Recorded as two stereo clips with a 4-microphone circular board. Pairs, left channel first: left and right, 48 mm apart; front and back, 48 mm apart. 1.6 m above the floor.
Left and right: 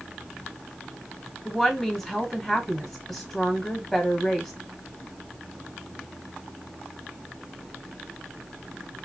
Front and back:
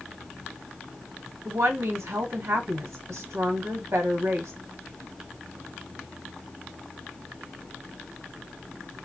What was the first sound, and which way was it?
A woman speaking, 175° left.